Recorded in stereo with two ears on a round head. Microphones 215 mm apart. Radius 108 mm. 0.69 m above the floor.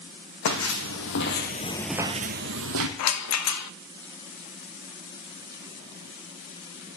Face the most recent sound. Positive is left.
turn(degrees=70)  # may be behind; listen again after turning